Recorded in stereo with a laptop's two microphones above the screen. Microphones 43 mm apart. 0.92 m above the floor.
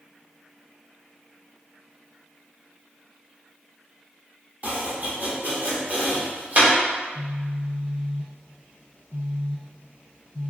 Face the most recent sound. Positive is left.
turn(degrees=50)  # may be behind; listen again after turning